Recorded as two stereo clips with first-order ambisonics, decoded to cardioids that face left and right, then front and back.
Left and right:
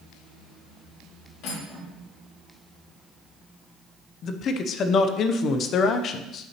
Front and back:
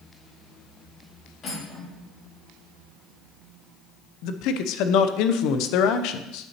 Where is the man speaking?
35° left, 0.5 m.